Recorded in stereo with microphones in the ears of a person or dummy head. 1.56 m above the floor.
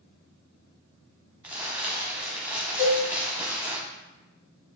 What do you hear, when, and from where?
1.4 s crumpling: 10° right (ahead or behind), 0.6 m
2.8 s a cowbell: 15° left (ahead or behind), 1.3 m